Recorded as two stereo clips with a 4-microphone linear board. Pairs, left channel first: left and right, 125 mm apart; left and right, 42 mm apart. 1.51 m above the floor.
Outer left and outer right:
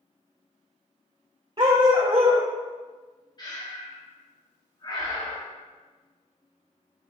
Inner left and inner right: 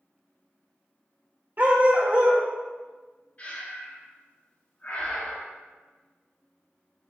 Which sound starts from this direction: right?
A dog barking, at 1.6 s.